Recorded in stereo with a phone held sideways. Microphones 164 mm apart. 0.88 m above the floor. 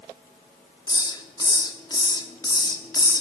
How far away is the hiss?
About 1.4 m.